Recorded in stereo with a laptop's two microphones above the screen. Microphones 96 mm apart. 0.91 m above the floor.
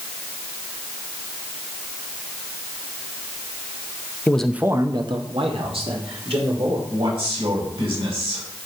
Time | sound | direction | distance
4.3 | a man speaking | 20° left (ahead or behind) | 0.6 m
6.9 | a man speaking | 75° right (ahead or behind) | 4.5 m